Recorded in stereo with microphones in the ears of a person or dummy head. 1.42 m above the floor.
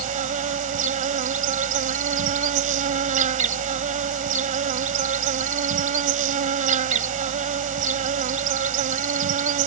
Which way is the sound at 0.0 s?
40° right (ahead or behind).